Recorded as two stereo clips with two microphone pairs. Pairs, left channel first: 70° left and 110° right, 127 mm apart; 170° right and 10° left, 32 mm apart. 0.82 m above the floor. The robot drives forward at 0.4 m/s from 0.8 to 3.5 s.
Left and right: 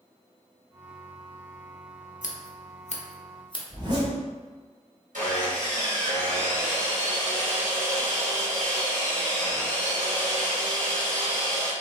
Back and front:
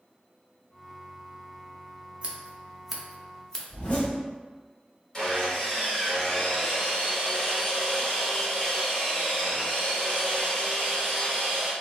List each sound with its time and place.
2.2 s scissors: 65° left, 0.6 m; by 3.6 s 120° left, 0.6 m
3.7 s a zipper: 150° right, 1.1 m
5.1 s sawing: 100° right, 1.5 m